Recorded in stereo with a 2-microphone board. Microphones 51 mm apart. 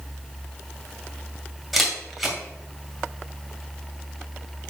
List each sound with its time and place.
1.7 s a camera shutter: centre (ahead or behind), 2 m